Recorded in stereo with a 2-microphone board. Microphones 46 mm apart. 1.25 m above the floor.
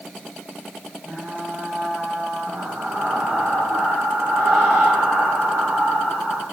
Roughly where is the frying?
Right.